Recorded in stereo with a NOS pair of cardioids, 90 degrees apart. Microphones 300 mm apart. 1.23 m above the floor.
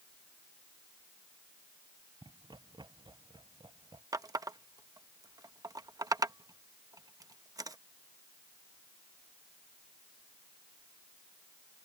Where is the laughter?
15° right.